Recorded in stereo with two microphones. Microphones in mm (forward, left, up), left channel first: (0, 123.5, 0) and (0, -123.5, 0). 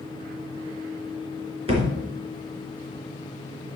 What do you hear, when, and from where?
1.7 s a thud: 25° right (ahead or behind), 3 m